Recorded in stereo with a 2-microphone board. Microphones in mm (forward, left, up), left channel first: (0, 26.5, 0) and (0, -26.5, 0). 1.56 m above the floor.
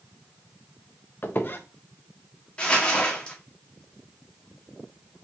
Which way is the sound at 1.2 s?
40° left (ahead or behind).